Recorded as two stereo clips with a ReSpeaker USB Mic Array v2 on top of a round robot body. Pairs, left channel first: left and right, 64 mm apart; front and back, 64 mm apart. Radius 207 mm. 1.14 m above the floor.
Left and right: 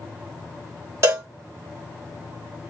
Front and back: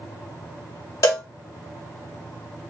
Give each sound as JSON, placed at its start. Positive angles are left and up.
{"t": 1.0, "sound": "a cowbell", "azimuth_deg": -40, "distance_m": 1.6}